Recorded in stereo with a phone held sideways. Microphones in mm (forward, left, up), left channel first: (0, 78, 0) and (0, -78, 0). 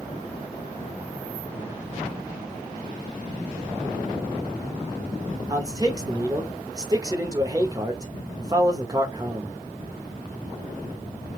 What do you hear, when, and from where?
5.5 s a man speaking: 25° right (ahead or behind), 0.8 m